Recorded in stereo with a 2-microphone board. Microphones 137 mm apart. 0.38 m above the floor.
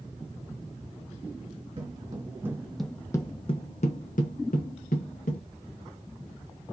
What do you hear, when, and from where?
1.8 s footsteps: 35° right (ahead or behind), 1.1 m; by 5.4 s 75° left (ahead or behind), 1.6 m